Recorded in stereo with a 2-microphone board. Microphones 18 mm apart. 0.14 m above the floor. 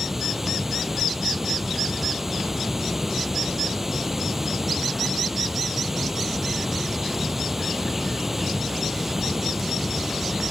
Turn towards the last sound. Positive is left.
turn(degrees=-25)  # may be behind; listen again after turning